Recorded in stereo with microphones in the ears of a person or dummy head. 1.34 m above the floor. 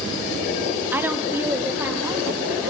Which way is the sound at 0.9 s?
5° right (ahead or behind).